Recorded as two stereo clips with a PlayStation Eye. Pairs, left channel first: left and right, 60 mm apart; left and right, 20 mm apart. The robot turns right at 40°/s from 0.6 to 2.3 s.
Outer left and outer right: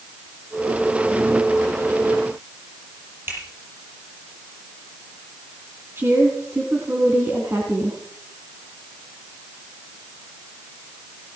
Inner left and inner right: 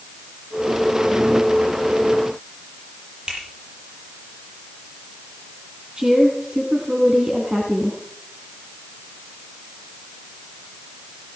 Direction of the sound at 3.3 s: 40° right (ahead or behind).